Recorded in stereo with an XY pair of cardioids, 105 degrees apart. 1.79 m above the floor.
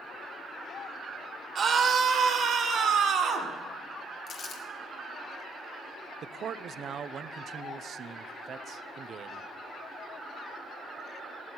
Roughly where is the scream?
Ahead right.